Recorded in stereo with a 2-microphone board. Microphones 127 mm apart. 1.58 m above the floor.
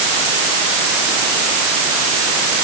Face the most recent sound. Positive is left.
No sound to turn to.